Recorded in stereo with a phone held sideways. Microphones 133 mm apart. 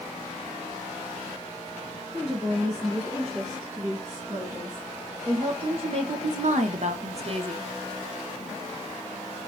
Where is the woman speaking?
15° right (ahead or behind), 2.5 m; by 7.7 s 40° right (ahead or behind), 0.8 m.